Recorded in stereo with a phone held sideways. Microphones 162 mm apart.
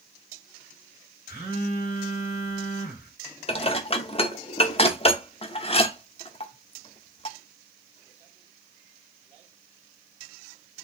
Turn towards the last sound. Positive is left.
turn(degrees=35)  # may be behind; listen again after turning